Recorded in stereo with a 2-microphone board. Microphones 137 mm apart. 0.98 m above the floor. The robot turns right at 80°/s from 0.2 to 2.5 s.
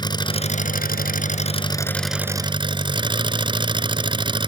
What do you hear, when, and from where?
0.0 s an engine running: 30° left; by 4.5 s 145° right